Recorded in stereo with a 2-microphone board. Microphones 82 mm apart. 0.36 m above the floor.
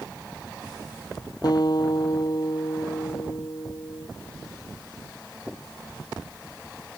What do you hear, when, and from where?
1.4 s a guitar: 55° left (ahead or behind)